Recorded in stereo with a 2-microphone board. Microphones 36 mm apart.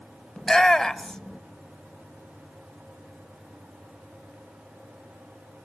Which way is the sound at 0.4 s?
15° left (ahead or behind).